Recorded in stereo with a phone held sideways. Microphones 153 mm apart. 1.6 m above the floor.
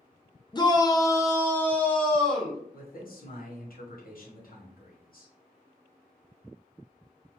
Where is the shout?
30° left (ahead or behind), 0.5 m; by 2.6 s 5° left (ahead or behind), 1.1 m.